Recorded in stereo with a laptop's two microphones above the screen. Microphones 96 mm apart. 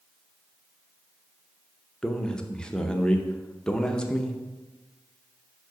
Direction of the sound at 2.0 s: 10° left (ahead or behind).